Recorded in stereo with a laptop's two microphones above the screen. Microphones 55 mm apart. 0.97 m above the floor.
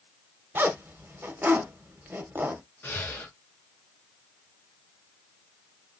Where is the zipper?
40° right (ahead or behind), 0.9 m.